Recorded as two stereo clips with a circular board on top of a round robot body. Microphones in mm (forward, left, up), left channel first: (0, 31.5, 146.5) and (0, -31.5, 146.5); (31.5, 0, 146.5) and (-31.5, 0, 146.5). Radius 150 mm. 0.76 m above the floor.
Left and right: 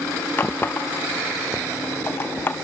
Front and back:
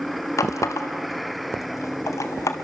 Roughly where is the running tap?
Ahead left.